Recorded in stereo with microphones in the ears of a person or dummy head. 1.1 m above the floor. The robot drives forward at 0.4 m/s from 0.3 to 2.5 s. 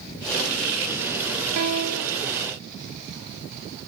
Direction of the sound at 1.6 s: 80° right.